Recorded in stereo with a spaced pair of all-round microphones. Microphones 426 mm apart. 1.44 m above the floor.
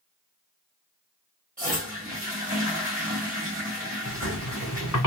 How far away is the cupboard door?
No cupboard door in this recording.